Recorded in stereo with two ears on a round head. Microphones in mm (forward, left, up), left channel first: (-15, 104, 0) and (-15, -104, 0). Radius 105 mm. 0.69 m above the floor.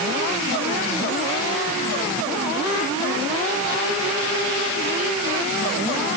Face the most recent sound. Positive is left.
No sound to turn to.